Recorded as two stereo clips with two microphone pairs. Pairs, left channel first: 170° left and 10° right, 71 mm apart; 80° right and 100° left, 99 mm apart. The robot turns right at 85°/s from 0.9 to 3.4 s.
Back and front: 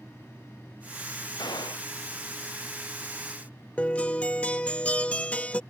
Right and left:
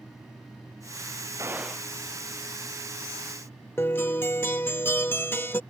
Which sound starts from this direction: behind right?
A guitar, at 3.8 s.